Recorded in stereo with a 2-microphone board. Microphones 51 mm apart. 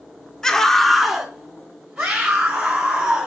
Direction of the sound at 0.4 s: 10° left (ahead or behind).